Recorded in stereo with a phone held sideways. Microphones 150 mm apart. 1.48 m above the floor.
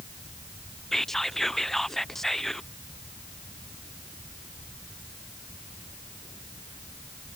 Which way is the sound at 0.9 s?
Centre (ahead or behind).